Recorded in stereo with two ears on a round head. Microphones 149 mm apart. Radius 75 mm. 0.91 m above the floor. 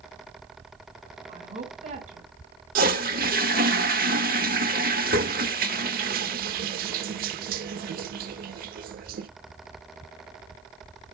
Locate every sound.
1.3 s a woman speaking: 40° right (ahead or behind), 4.5 m
2.8 s a toilet flushing: 55° right (ahead or behind), 0.7 m